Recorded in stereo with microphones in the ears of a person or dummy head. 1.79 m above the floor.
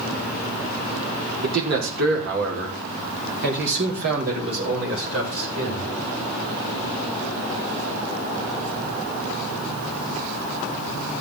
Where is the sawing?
I don't hear sawing.